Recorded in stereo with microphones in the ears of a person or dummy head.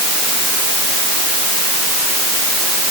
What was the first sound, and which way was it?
Only background noise.